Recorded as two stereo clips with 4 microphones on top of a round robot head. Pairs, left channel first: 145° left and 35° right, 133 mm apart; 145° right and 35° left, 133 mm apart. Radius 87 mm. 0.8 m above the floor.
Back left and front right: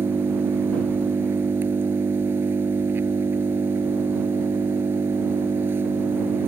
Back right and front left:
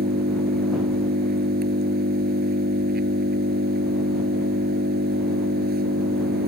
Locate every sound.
0.0 s an engine running: 40° left